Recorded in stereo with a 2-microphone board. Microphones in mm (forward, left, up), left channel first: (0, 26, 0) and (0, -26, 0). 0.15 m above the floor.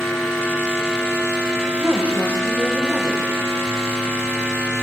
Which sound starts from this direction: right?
A woman speaking, at 1.8 s.